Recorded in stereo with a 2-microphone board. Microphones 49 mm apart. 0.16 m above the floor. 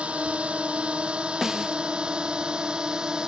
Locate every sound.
0.0 s a drone: 25° right (ahead or behind); by 3.3 s 15° right (ahead or behind)
1.4 s a snare drum: 5° right (ahead or behind)